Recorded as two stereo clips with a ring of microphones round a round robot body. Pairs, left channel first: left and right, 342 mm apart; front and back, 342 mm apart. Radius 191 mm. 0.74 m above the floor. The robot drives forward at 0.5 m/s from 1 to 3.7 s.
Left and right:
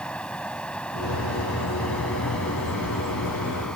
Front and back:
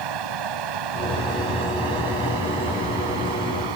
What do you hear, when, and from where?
0.0 s running water: 175° left; by 3.8 s straight behind